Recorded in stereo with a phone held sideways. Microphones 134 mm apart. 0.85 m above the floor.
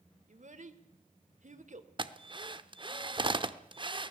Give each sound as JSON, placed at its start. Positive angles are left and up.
{"t": 0.3, "sound": "a child speaking", "side_deg": -65, "distance_m": 2.0}
{"t": 2.0, "sound": "a drill", "side_deg": -35, "distance_m": 0.9}